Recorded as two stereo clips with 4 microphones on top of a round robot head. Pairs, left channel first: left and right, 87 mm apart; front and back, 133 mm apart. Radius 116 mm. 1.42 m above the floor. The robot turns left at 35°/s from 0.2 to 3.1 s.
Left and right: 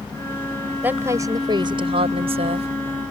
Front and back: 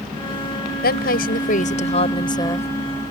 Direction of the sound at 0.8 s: 15° right.